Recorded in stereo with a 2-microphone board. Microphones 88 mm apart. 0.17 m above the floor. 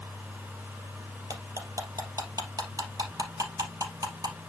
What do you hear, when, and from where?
1.3 s cutlery clinking: 45° right (ahead or behind), 2.5 m